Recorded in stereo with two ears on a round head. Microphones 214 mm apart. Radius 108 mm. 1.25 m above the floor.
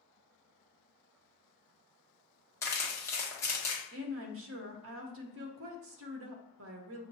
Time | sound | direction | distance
2.6 | crumpling | 10° left (ahead or behind) | 1.1 m
3.9 | a woman speaking | 55° right (ahead or behind) | 0.7 m